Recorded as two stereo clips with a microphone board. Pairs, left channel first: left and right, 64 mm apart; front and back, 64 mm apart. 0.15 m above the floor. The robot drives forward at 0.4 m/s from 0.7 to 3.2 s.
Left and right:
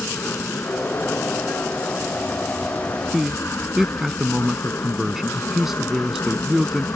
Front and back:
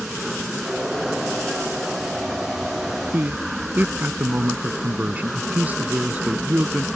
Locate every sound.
0.0 s an aircraft: 100° left; by 7.0 s 90° left
3.1 s a man speaking: 165° right